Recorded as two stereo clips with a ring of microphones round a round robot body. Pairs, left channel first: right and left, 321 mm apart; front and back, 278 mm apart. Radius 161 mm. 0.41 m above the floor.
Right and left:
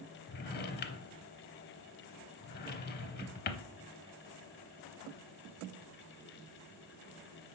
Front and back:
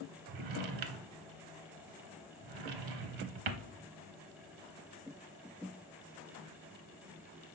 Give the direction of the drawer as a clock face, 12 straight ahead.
5 o'clock.